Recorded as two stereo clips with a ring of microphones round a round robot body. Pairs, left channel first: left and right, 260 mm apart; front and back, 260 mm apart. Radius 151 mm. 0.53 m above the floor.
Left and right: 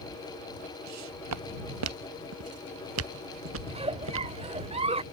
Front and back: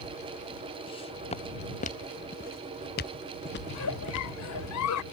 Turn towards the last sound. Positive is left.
turn(degrees=-25)